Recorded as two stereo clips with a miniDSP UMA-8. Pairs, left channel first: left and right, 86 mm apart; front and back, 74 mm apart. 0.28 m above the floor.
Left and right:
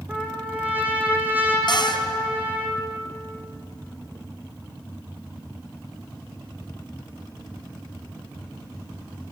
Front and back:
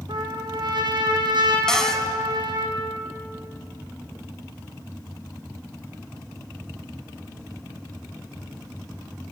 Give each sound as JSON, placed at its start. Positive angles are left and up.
{"t": 0.1, "sound": "a trumpet", "azimuth_deg": -160, "distance_m": 4.5}
{"t": 1.7, "sound": "a cupboard door", "azimuth_deg": 80, "distance_m": 2.5}